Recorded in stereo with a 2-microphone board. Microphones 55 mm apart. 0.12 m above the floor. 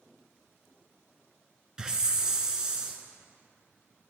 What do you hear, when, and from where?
1.8 s a hiss: 15° right (ahead or behind), 1.0 m